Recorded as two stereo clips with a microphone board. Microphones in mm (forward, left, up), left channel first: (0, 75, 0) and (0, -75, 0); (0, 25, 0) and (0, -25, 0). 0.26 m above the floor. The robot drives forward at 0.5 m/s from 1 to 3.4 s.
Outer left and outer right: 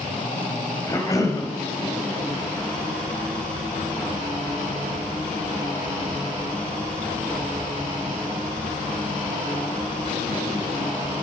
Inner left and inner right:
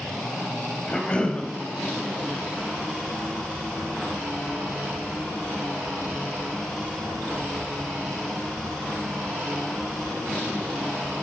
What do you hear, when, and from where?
0.9 s a cough: 25° left (ahead or behind), 1.1 m